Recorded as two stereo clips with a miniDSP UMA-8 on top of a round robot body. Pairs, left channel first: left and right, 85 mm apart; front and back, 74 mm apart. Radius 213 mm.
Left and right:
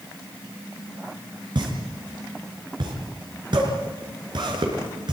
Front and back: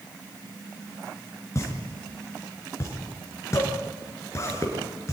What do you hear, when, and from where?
1.6 s a pop: 55° right, 5 m